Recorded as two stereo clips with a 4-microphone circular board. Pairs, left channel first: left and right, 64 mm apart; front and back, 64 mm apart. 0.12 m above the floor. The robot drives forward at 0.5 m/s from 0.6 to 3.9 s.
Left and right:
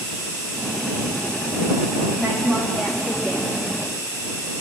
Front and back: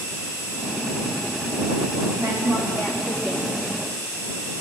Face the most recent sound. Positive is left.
turn(degrees=-175)